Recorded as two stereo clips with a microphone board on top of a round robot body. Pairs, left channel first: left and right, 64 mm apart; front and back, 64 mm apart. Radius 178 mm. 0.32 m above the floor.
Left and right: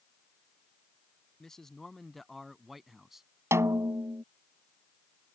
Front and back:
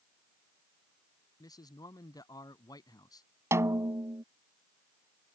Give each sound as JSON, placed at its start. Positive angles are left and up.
{"t": 1.4, "sound": "a man speaking", "azimuth_deg": 10}
{"t": 3.5, "sound": "a snare drum", "azimuth_deg": -135}